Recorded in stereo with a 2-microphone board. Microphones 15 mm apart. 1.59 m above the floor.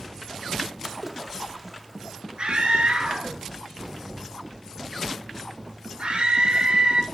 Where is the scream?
65° right (ahead or behind), 3 m.